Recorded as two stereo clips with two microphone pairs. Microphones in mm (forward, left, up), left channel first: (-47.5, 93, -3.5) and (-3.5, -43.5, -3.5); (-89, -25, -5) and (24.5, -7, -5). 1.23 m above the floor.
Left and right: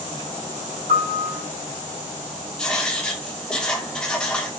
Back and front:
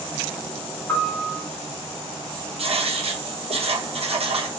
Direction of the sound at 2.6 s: 25° left.